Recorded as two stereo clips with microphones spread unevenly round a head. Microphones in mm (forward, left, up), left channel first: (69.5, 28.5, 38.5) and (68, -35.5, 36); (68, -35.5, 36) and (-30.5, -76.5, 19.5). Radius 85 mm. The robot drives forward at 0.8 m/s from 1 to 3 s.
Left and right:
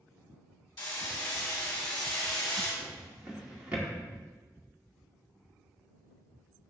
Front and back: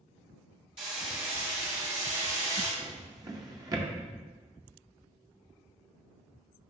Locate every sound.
0.8 s hammering: 135° left, 1.5 m; by 2.7 s 160° left, 2.5 m
2.8 s a drawer: 110° right, 0.9 m; by 3.9 s 135° right, 0.9 m